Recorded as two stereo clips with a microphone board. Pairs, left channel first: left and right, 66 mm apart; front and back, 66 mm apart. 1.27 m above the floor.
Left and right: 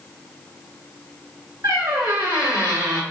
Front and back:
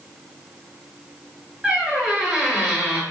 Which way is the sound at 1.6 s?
90° right.